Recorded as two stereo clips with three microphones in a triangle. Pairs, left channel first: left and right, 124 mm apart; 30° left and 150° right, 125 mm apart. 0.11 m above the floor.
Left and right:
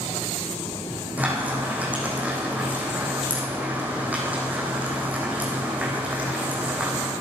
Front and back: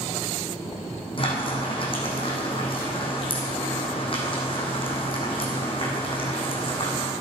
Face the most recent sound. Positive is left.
turn(degrees=-10)